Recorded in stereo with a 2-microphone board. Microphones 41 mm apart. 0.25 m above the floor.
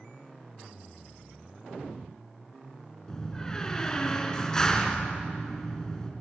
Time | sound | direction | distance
3.1 | a door slam | 15° left (ahead or behind) | 2.5 m